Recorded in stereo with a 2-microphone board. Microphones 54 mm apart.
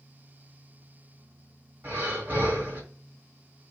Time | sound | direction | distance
1.8 | breathing | 40° right (ahead or behind) | 1.7 m